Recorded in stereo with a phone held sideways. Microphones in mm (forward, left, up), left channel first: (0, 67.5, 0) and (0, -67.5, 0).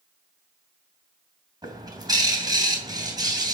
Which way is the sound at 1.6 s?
30° right (ahead or behind).